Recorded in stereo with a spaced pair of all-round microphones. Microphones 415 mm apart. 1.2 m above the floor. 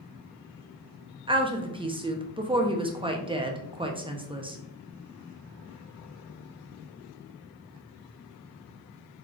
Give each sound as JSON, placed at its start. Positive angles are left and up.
{"t": 1.3, "sound": "a woman speaking", "side_deg": -15, "distance_m": 0.6}